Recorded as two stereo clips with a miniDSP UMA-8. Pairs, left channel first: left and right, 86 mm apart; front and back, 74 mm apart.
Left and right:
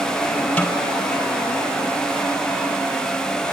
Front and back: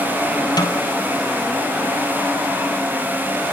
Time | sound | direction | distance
0.6 | a snare drum | 15° left | 3.5 m